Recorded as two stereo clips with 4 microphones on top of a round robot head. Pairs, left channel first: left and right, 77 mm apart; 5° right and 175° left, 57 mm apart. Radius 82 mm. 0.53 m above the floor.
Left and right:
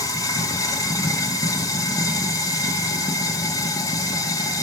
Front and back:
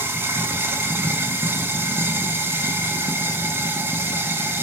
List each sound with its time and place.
0.0 s running water: 125° left, 1.7 m